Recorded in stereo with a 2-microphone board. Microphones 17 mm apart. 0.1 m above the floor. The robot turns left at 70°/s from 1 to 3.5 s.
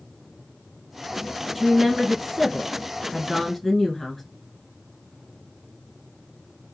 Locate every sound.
1.6 s a woman speaking: 15° right (ahead or behind), 1.4 m; by 4.2 s centre (ahead or behind), 1.4 m